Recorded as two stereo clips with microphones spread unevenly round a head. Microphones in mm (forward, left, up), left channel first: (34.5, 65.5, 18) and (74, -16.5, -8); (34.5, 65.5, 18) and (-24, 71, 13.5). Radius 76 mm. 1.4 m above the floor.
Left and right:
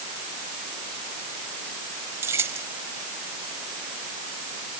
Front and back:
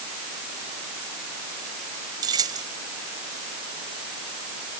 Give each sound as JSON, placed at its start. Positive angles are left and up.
{"t": 2.2, "sound": "keys jangling", "azimuth_deg": -140}